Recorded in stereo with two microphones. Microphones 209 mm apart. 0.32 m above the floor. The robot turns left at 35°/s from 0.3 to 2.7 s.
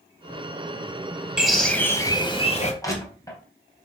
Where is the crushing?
15° left (ahead or behind), 2.5 m.